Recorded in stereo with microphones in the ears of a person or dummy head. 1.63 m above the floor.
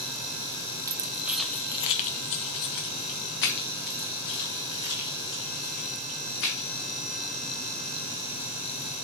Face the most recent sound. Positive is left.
turn(degrees=55)  # may be behind; listen again after turning